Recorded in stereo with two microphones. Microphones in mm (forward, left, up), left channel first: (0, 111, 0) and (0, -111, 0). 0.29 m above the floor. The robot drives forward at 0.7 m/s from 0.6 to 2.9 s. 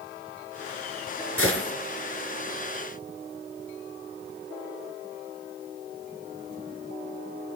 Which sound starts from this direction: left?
A gunshot, at 1.4 s.